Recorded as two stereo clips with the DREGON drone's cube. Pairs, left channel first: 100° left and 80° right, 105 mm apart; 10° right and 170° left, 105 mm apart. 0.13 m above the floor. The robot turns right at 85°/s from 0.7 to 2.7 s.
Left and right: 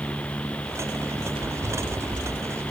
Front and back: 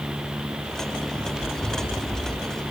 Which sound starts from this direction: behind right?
Running footsteps, at 1.1 s.